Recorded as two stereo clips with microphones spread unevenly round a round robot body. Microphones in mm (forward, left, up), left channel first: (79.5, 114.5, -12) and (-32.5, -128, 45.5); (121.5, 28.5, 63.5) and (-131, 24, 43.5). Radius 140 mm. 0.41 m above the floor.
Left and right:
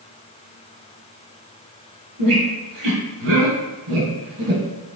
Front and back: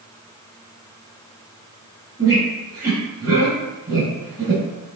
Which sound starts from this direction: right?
A squeak, at 2.2 s.